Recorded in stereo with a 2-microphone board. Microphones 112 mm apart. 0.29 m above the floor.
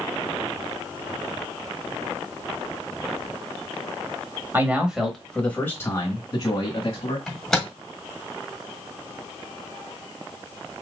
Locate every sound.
4.5 s a man speaking: 20° right (ahead or behind), 1.2 m; by 7.2 s 45° left (ahead or behind), 1.9 m
7.3 s a microwave: 5° left (ahead or behind), 1.3 m